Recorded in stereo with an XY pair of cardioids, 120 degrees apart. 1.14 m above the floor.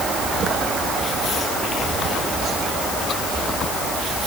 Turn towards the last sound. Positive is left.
No sound to turn to.